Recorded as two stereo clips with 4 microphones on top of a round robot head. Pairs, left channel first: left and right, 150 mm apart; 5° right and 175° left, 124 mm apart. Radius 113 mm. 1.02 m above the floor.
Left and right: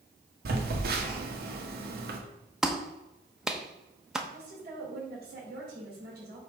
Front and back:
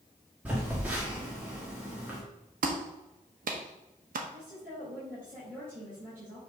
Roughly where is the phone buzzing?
Right.